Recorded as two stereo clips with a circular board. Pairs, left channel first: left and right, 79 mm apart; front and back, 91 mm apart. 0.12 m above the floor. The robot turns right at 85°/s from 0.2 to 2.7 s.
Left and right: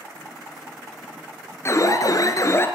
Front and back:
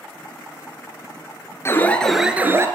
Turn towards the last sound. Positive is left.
turn(degrees=140)